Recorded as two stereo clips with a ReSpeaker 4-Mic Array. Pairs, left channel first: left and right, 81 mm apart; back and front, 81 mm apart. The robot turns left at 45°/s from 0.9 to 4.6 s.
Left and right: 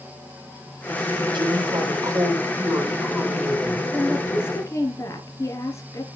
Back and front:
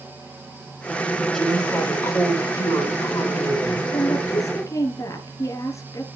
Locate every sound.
1.3 s a woman speaking: 95° right, 6 m; by 3.8 s 155° left, 6 m
3.9 s a woman speaking: 170° left, 2.5 m; by 6.0 s 140° left, 2.5 m